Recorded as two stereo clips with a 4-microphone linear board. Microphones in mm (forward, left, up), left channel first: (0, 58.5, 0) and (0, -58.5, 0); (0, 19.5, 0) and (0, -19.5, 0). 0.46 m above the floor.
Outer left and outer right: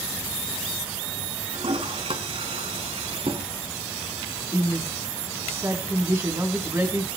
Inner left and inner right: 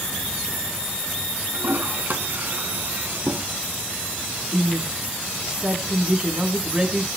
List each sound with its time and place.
1.5 s a toilet flushing: 55° right (ahead or behind), 2 m
4.5 s a woman speaking: 20° right (ahead or behind), 4 m